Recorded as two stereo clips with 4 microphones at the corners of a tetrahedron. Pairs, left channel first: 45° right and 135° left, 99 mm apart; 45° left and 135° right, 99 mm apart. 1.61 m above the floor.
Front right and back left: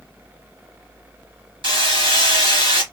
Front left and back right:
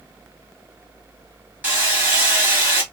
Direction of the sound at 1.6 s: 155° left.